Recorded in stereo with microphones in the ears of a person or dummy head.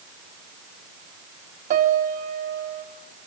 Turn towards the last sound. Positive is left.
turn(degrees=-50)  # may be behind; listen again after turning